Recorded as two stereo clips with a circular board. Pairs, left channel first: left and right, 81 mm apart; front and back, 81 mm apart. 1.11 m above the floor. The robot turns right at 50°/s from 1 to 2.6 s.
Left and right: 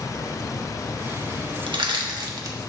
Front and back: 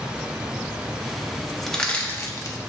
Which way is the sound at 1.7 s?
85° right.